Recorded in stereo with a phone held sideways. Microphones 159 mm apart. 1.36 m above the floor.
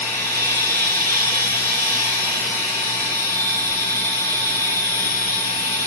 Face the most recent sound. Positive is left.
turn(degrees=15)  # may be behind; listen again after turning